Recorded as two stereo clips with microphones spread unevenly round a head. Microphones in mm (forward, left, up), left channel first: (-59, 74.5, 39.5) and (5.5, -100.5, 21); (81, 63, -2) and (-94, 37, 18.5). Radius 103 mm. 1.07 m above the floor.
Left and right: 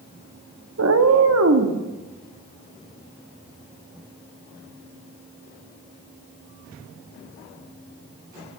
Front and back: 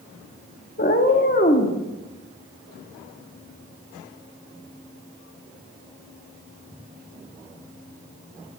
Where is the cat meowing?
45° right, 0.8 m; by 1.8 s 50° right, 1.4 m.